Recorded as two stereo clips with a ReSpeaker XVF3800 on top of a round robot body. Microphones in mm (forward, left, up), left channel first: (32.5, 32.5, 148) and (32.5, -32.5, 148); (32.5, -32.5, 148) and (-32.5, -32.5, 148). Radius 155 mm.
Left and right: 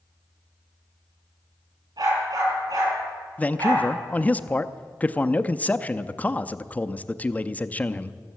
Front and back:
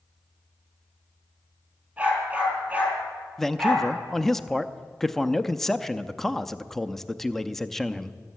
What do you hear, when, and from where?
2.0 s a dog barking: 110° right, 7 m
3.4 s a man speaking: 75° left, 0.7 m